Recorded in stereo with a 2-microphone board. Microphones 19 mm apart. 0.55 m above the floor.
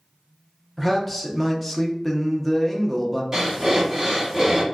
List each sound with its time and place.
0.8 s a man speaking: 10° left (ahead or behind), 0.6 m
3.3 s breathing: 25° right (ahead or behind), 0.9 m